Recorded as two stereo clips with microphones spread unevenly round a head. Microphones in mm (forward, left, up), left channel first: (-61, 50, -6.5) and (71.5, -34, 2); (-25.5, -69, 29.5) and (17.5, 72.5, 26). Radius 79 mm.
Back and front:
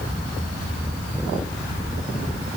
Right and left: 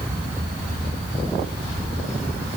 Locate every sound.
Only background noise.